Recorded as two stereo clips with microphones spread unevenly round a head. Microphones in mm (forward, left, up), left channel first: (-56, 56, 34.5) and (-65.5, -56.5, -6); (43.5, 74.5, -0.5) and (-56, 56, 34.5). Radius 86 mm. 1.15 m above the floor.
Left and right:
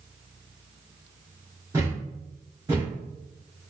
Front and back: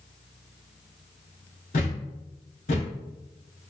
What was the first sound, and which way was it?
A thud, 10° right.